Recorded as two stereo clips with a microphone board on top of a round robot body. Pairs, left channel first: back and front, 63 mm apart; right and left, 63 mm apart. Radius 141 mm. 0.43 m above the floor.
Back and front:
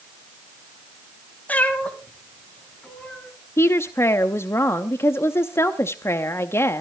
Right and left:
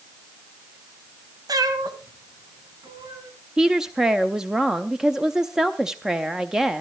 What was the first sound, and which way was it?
A cat meowing, 110° left.